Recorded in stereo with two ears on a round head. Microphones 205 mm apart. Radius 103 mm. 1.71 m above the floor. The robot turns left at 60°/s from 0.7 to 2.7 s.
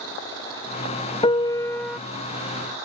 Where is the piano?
50° left; by 2.0 s 5° left.